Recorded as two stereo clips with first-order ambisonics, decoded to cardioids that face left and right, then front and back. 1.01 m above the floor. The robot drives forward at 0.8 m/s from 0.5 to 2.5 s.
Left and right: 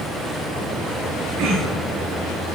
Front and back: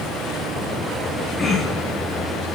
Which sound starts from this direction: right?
Throat clearing, at 1.4 s.